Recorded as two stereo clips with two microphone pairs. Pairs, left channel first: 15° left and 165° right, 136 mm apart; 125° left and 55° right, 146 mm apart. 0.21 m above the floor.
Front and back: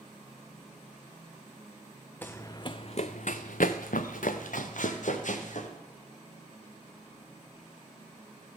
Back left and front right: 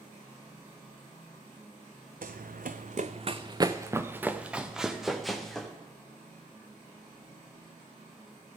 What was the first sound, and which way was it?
Running footsteps, 65° right.